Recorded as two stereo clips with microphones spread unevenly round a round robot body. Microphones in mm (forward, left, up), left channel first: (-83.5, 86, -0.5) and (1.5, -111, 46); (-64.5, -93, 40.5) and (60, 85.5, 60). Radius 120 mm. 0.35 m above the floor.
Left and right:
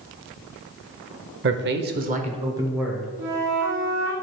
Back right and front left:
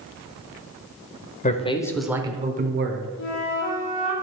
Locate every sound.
1.4 s a man speaking: 95° right, 1.2 m; by 3.1 s 35° left, 1.5 m
3.2 s a flute: 95° right, 4 m